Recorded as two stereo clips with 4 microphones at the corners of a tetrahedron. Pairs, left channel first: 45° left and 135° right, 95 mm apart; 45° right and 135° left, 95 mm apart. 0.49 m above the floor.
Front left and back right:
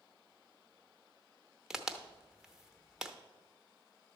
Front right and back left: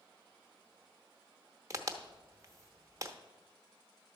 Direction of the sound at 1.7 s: 145° left.